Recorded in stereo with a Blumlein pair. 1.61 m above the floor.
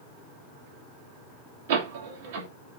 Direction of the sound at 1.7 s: 55° right.